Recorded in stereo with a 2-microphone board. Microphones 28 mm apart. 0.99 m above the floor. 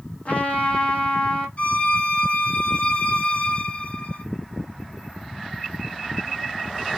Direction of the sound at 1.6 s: 50° left (ahead or behind).